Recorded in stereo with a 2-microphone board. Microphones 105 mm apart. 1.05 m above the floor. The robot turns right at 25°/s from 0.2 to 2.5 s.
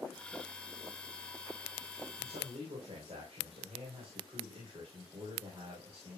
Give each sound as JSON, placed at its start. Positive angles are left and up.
{"t": 2.2, "sound": "a man speaking", "side_deg": -75, "distance_m": 3.5}